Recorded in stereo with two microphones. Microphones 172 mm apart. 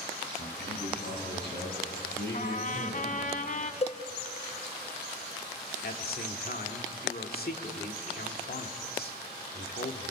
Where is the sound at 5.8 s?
60° left (ahead or behind), 2.5 m.